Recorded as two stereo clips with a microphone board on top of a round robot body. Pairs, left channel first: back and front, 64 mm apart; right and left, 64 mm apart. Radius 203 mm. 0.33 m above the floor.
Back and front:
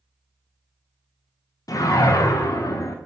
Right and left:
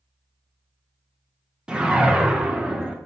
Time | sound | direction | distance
1.7 | a whoosh | 165° left | 0.6 m